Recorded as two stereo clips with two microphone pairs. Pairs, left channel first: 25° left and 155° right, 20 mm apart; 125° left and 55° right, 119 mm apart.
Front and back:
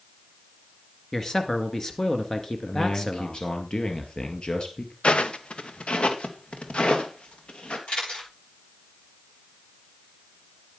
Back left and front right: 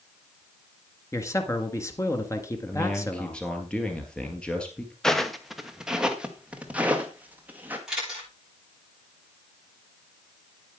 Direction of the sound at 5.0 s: 40° left.